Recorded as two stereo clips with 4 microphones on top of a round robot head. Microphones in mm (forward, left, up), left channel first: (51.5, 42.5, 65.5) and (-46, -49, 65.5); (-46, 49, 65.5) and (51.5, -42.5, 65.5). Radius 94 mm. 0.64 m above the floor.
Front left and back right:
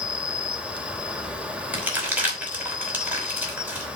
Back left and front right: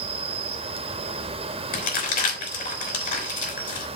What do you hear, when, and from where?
0.0 s an insect: 55° right, 1.5 m
1.7 s crumpling: 145° left, 5.5 m